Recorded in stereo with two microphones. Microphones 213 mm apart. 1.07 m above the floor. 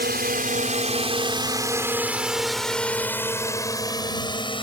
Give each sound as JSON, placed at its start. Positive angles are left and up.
{"t": 0.0, "sound": "a drone", "side_deg": -50}